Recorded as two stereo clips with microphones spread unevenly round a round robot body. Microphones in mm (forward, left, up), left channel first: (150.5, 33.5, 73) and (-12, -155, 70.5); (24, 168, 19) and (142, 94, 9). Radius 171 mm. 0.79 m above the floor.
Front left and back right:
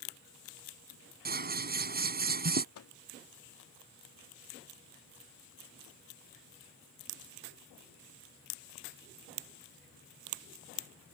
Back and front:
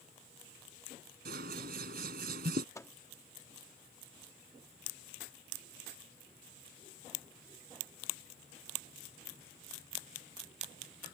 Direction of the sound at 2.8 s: 75° left.